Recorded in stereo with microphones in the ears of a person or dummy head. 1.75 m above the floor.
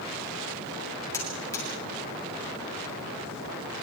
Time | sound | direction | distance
1.1 | a buzzer | 15° left (ahead or behind) | 8.5 m